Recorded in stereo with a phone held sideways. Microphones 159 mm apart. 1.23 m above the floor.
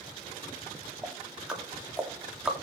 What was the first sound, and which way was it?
Ticking, 5° right (ahead or behind).